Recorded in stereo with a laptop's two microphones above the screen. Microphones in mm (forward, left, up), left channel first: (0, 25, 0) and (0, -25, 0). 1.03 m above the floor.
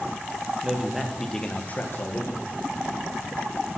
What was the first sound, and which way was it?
A man speaking, 15° right (ahead or behind).